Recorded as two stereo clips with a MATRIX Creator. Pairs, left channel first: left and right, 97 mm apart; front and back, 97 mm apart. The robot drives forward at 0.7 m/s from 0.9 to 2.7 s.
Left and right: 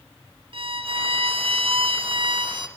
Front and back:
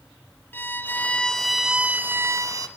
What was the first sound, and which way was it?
A violin, 70° right.